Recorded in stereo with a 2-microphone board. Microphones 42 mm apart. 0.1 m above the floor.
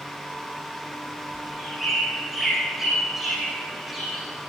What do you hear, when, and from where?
1.3 s a bird: 5° right (ahead or behind), 6.5 m